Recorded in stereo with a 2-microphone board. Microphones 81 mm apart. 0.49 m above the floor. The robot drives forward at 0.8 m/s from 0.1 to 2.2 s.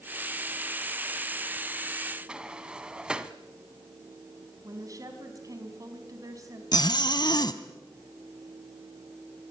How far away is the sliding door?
About 1.0 m.